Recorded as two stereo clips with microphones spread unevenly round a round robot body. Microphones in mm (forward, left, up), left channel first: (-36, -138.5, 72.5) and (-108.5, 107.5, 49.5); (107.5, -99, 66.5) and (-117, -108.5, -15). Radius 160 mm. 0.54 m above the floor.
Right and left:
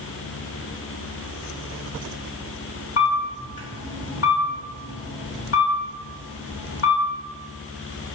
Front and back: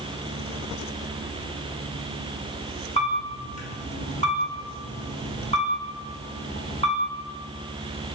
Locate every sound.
3.0 s a camera shutter: 70° right, 1.3 m